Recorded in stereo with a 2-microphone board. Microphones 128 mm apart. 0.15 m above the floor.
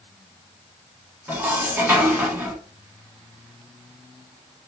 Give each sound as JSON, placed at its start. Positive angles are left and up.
{"t": 1.3, "sound": "dishes clattering", "side_deg": -15, "distance_m": 0.8}